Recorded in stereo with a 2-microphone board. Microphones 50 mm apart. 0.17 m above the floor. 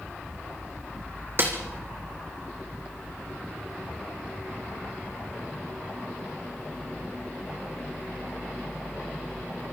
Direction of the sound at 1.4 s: 45° right (ahead or behind).